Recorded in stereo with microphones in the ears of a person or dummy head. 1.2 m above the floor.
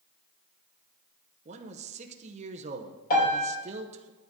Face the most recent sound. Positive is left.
turn(degrees=55)  # may be behind; listen again after turning